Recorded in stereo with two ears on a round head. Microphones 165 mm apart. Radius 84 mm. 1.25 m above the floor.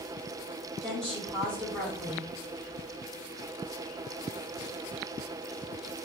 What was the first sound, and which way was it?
A woman speaking, 5° left (ahead or behind).